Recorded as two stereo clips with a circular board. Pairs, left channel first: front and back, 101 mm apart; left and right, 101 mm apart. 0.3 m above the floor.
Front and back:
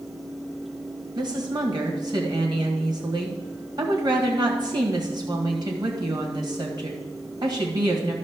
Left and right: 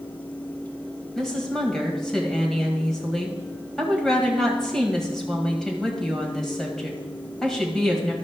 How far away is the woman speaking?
About 1.8 m.